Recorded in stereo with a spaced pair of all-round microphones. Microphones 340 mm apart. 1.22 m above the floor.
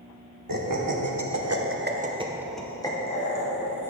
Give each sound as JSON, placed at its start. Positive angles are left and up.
{"t": 0.5, "sound": "laughter", "side_deg": -70, "distance_m": 1.1}